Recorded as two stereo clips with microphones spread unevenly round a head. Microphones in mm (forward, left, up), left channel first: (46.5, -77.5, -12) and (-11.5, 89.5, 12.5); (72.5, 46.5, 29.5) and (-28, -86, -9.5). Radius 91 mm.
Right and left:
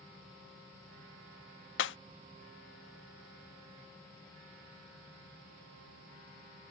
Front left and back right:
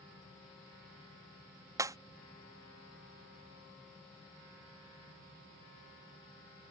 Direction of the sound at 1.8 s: 50° right.